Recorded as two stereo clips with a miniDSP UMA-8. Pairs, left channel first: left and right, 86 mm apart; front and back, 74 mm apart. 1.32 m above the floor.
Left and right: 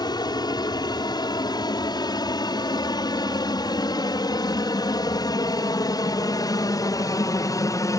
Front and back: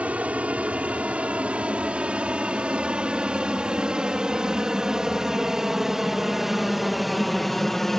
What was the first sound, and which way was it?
An aircraft, 110° left.